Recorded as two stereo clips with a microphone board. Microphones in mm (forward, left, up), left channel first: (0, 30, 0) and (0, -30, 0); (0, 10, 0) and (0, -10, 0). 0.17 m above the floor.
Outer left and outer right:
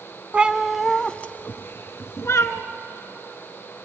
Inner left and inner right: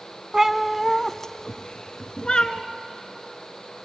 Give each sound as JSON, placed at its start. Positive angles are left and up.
{"t": 0.3, "sound": "a cat meowing", "side_deg": -20, "distance_m": 0.8}